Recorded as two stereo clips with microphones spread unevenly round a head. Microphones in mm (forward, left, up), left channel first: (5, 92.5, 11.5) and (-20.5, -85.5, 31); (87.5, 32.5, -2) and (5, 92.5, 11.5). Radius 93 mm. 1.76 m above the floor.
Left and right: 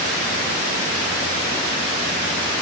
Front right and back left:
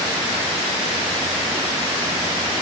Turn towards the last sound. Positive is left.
No sound to turn to.